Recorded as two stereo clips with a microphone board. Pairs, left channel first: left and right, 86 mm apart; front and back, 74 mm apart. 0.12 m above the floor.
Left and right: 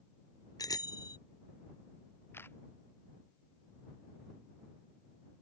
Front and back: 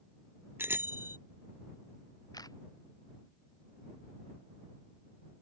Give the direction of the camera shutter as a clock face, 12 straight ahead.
11 o'clock.